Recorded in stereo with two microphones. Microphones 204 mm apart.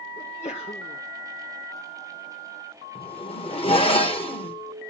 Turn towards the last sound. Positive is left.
turn(degrees=25)  # may be behind; listen again after turning